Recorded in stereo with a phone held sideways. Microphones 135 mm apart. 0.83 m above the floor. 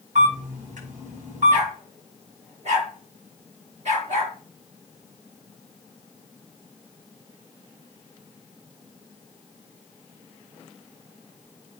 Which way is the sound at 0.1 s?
75° right (ahead or behind).